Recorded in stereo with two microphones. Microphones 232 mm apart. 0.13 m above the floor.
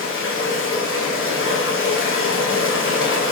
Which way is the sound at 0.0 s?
60° left (ahead or behind).